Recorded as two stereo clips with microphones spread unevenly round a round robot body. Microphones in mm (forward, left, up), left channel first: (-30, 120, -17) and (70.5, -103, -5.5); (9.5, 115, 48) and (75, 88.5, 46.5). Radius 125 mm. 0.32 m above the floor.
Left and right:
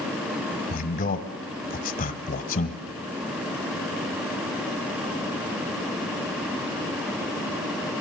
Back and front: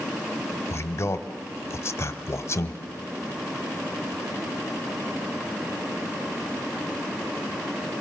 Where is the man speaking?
140° left, 1.2 m.